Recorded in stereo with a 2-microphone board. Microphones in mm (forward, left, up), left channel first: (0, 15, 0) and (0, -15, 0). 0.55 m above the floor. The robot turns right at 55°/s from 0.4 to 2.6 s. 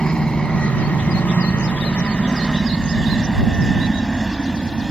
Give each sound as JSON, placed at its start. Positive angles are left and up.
{"t": 0.0, "sound": "a helicopter", "side_deg": 30}